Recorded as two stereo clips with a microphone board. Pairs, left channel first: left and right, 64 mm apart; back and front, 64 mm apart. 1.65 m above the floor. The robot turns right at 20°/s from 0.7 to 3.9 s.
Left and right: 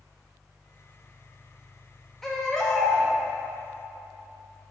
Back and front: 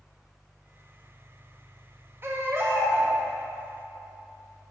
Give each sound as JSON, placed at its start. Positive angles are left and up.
{"t": 2.2, "sound": "a baby crying", "azimuth_deg": 10, "distance_m": 1.1}